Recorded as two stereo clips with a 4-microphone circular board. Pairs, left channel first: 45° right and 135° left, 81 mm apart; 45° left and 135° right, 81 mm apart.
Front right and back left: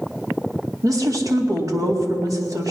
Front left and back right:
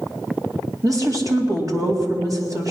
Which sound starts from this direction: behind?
A woman speaking, at 0.8 s.